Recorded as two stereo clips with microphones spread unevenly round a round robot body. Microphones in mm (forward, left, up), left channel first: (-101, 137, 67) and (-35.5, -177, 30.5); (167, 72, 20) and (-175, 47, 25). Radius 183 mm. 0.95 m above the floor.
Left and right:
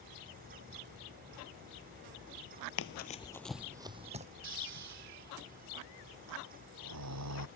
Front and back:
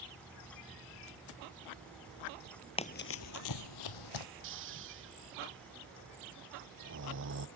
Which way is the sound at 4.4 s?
115° right.